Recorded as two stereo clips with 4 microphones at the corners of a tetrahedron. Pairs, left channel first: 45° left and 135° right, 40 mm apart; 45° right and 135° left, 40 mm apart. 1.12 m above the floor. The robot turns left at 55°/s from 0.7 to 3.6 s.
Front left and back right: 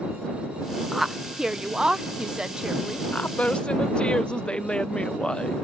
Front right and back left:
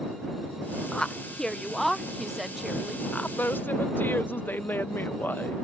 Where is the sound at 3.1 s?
5° left; by 5.5 s 20° right.